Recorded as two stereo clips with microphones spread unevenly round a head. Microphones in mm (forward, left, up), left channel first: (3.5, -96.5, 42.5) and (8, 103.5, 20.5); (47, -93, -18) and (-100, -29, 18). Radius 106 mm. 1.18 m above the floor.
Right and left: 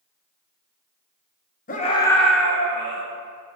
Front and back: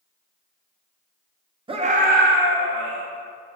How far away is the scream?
About 1.1 m.